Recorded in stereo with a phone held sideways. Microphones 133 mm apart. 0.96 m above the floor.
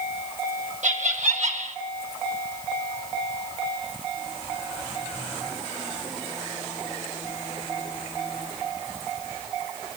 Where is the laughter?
65° right (ahead or behind), 4 m.